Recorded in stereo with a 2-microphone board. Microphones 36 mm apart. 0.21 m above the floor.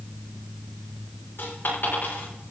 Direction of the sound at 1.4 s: 70° left (ahead or behind).